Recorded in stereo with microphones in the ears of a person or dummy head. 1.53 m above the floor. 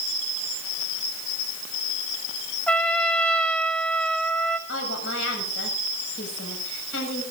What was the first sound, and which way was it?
A trumpet, 5° left (ahead or behind).